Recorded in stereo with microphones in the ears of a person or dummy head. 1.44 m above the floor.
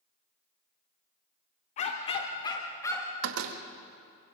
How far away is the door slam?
About 1.5 m.